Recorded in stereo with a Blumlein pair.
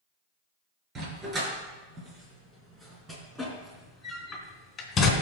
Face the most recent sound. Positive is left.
turn(degrees=25)